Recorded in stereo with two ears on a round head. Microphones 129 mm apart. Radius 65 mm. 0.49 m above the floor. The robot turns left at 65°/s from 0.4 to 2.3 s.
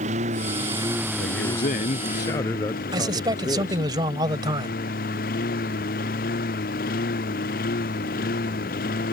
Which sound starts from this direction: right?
A man speaking, at 2.9 s.